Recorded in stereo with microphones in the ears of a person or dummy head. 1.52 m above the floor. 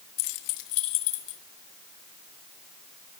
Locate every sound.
0.2 s keys jangling: 50° left (ahead or behind), 1.1 m; by 1.4 s 70° left (ahead or behind), 2 m